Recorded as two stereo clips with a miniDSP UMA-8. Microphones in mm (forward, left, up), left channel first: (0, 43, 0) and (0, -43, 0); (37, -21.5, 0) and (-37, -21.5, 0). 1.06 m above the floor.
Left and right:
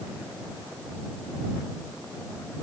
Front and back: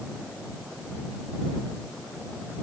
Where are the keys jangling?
No keys jangling in this recording.